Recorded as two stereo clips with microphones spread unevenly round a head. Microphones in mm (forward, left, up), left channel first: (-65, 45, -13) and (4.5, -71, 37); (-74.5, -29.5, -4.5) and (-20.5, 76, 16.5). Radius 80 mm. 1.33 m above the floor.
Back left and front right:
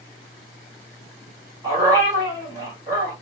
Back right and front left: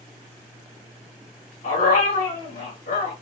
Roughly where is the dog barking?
Right.